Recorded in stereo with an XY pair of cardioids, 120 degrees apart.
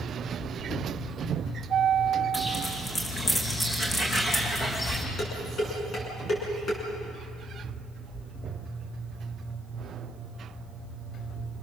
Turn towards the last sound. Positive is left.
turn(degrees=35)